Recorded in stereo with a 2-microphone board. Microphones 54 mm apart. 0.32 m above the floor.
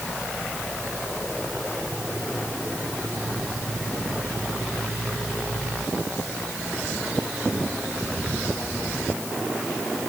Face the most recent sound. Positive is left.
No sound to turn to.